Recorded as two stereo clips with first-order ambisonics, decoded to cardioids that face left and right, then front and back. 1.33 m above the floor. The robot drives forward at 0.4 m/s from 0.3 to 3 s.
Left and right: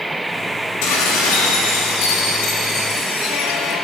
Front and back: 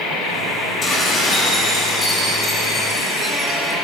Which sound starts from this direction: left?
Dishes clattering, at 0.8 s.